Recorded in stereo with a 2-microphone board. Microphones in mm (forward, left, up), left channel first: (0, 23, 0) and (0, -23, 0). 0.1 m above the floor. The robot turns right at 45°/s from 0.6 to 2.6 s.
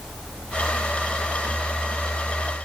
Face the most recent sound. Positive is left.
No sound to turn to.